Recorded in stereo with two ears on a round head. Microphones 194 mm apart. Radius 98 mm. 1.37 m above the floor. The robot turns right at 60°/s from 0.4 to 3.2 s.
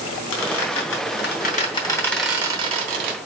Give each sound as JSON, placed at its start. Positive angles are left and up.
{"t": 0.3, "sound": "a squeak", "side_deg": 65, "distance_m": 3.5}